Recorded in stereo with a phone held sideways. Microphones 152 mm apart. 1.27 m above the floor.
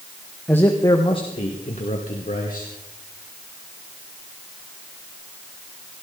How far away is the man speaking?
About 1.5 m.